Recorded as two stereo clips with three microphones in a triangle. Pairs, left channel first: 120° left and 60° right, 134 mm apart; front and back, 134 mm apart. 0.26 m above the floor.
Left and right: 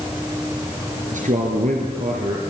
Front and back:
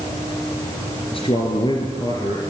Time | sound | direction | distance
1.1 | a man speaking | 45° right | 4 m